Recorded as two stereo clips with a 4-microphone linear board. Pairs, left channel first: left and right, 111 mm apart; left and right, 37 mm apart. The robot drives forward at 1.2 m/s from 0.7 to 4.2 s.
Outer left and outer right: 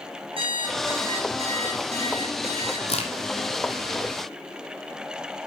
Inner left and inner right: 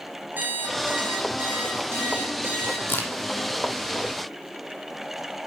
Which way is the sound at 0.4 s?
55° right (ahead or behind).